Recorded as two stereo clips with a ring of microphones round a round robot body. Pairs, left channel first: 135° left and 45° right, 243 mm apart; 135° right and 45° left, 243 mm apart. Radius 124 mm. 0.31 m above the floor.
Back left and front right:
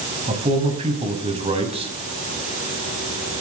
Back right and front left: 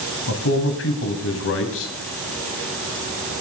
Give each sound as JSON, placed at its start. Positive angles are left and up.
{"t": 0.3, "sound": "a man speaking", "azimuth_deg": -110, "distance_m": 2.0}